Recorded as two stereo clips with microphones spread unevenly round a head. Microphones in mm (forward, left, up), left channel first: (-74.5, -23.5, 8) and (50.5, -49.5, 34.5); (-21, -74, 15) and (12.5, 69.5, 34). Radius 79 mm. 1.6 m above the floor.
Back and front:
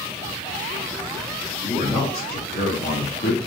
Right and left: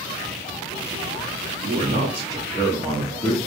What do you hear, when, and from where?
1.6 s a man speaking: 110° left, 0.9 m; by 3.4 s straight behind, 1.2 m